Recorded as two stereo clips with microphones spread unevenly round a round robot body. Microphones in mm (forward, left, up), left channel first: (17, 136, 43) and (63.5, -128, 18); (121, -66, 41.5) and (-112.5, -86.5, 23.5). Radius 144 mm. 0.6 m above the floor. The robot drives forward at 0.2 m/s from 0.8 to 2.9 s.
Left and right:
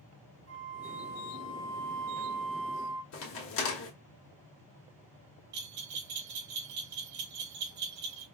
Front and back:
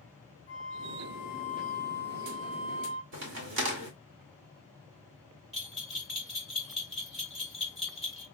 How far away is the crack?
About 1.3 m.